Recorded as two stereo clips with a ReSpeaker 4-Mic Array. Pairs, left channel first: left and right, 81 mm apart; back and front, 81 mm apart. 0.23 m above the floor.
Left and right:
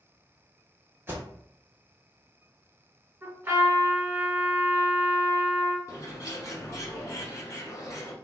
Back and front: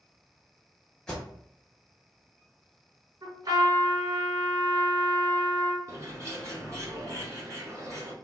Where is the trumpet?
25° right, 1.4 m.